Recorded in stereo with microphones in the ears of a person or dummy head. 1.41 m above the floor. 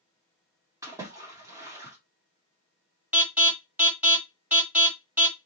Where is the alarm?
15° right (ahead or behind), 1.6 m.